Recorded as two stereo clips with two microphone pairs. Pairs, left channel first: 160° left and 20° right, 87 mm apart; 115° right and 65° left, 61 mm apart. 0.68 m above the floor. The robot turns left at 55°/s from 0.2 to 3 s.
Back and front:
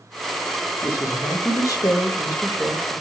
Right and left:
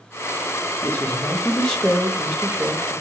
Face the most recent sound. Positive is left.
turn(degrees=95)